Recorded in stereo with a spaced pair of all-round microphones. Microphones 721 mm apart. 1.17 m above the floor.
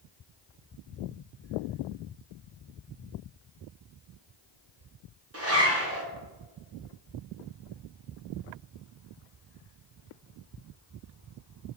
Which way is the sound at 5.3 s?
20° right (ahead or behind).